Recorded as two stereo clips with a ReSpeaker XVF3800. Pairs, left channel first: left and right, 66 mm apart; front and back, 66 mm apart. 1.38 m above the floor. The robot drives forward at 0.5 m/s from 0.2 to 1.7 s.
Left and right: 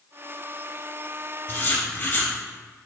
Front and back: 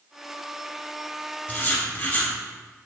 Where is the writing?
50° left, 1.3 m; by 2.3 s 55° left, 1.3 m.